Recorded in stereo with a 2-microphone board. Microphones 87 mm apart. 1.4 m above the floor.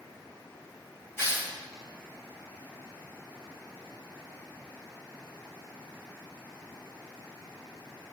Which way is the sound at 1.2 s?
25° left (ahead or behind).